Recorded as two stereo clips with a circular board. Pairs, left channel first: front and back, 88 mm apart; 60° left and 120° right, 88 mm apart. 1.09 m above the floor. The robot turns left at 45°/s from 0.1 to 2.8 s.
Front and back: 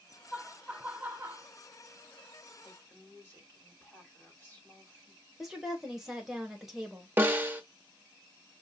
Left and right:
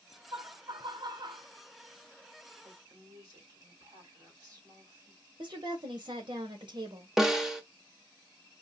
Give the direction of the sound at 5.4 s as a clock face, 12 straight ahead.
3 o'clock.